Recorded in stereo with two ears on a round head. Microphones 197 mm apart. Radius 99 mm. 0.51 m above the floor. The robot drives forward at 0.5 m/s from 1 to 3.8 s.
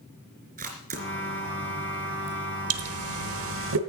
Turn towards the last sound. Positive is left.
turn(degrees=-60)  # may be behind; listen again after turning